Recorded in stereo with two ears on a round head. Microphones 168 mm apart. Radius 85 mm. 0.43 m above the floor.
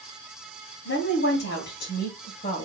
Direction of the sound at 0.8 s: 65° left (ahead or behind).